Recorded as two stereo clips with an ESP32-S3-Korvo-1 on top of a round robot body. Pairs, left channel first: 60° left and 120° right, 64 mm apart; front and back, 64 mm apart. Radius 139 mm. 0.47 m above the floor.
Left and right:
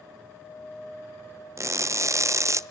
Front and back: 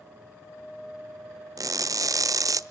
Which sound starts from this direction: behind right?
Crushing, at 1.6 s.